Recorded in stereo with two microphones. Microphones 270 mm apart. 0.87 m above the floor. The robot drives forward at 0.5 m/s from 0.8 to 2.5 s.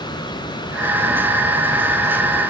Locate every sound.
Only background noise.